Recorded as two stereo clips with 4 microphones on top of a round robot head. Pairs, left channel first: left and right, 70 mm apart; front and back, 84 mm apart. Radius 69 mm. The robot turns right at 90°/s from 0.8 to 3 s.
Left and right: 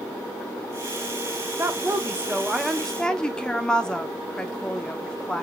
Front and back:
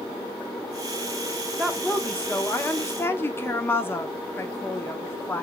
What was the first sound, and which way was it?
A woman speaking, 105° right.